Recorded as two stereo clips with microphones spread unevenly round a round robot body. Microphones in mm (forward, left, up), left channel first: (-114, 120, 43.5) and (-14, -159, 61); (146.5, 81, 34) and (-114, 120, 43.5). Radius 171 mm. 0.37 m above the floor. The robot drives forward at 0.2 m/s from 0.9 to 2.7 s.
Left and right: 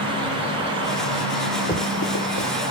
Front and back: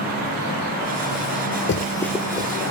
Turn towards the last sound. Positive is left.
turn(degrees=105)